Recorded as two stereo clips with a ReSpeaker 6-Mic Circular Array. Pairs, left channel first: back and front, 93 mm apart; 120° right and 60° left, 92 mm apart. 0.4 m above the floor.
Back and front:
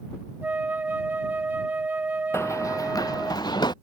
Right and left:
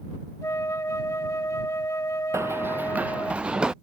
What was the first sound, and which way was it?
A flute, 70° right.